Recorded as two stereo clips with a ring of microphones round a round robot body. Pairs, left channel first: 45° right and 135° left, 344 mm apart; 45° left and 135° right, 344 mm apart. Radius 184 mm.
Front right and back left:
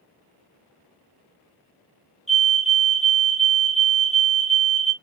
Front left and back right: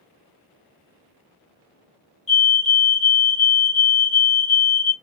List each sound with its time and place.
2.3 s a fire alarm: 45° left, 1.7 m